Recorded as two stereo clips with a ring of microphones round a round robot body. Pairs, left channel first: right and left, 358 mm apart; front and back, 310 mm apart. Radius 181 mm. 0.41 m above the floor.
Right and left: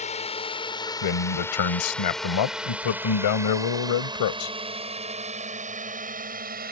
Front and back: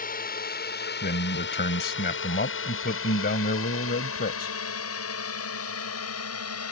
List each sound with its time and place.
0.0 s a drone: 35° right; by 6.7 s 30° left
1.0 s a man speaking: 65° right